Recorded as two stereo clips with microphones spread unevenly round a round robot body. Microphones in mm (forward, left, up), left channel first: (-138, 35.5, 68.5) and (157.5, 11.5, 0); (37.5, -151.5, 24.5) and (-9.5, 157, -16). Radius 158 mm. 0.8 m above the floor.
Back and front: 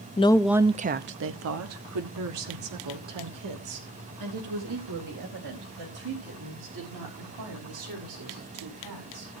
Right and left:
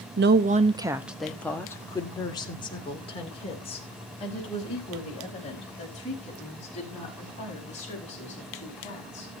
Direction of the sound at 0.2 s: 100° left.